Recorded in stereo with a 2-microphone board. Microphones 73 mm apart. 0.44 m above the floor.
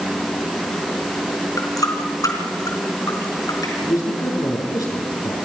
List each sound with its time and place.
1.6 s a running tap: 55° left (ahead or behind), 3.5 m
3.8 s a man speaking: 55° left (ahead or behind), 6 m